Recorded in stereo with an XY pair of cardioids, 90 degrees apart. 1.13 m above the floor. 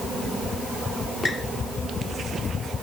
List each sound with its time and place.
1.2 s a squeak: 30° left, 2 m